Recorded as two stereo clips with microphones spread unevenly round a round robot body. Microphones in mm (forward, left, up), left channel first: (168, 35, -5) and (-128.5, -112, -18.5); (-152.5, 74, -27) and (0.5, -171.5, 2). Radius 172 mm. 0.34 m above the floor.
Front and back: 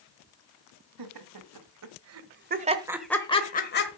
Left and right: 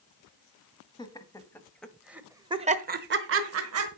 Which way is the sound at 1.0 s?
165° right.